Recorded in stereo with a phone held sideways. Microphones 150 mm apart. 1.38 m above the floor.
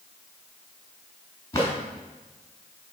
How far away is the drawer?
About 3.5 m.